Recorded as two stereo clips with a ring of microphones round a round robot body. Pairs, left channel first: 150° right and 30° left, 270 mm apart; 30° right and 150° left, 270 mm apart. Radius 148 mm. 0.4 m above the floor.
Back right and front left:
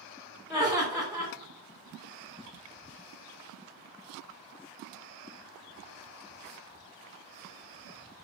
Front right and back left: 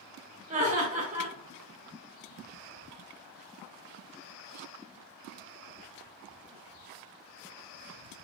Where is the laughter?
110° left, 1.6 m.